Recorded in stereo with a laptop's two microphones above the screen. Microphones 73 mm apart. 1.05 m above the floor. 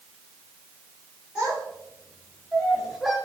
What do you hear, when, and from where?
1.4 s a child speaking: 15° right (ahead or behind), 3 m; by 3.1 s centre (ahead or behind), 1.3 m